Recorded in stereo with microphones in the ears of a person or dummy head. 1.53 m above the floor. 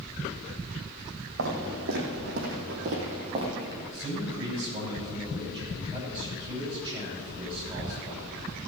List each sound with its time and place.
1.4 s footsteps: 65° right (ahead or behind), 4.5 m; by 3.8 s 20° right (ahead or behind), 2.5 m
3.9 s a man speaking: 25° right (ahead or behind), 6 m